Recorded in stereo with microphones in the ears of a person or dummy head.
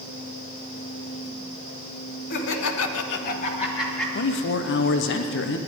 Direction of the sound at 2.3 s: 55° left (ahead or behind).